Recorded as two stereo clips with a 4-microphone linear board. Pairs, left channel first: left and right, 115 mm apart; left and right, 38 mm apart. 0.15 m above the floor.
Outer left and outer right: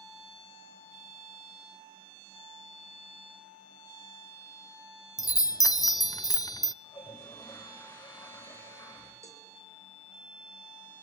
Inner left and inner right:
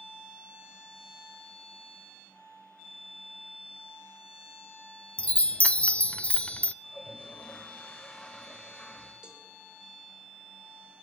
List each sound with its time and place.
5.2 s a chime: 30° left (ahead or behind), 0.5 m
6.8 s a toilet flushing: 25° left (ahead or behind), 7.5 m
9.2 s a cowbell: 25° right (ahead or behind), 4 m